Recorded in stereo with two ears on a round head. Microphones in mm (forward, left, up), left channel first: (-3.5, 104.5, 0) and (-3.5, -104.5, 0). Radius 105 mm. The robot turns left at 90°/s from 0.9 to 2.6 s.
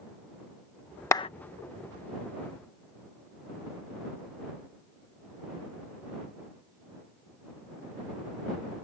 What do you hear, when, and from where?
1.1 s a clap: 10° left (ahead or behind); by 1.3 s 25° left (ahead or behind)